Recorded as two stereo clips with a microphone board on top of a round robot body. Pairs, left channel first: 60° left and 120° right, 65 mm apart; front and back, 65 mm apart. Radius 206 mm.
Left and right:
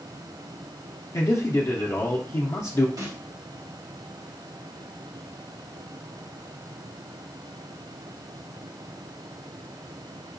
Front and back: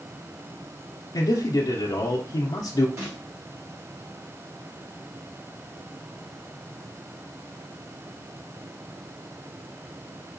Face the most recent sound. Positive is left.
turn(degrees=-145)